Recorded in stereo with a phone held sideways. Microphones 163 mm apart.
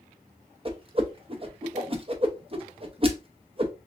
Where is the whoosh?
35° right (ahead or behind), 0.7 m.